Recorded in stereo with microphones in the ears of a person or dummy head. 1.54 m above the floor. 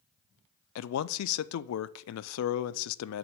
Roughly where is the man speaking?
Left.